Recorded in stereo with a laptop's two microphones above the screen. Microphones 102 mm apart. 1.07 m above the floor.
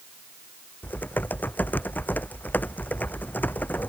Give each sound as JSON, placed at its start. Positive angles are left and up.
{"t": 0.8, "sound": "typing on a keyboard", "side_deg": 20}